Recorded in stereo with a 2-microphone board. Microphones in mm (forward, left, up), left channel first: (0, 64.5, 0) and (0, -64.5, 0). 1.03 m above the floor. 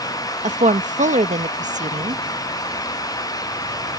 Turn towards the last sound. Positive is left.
turn(degrees=-75)  # may be behind; listen again after turning